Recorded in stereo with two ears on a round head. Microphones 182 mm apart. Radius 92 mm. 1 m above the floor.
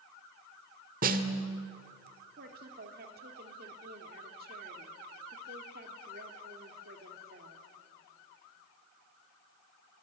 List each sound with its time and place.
1.0 s a snare drum: 40° right (ahead or behind), 1.5 m
2.4 s a woman speaking: 45° right (ahead or behind), 2.5 m